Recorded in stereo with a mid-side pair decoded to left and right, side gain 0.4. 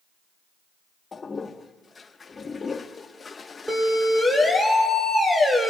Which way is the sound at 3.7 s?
5° right.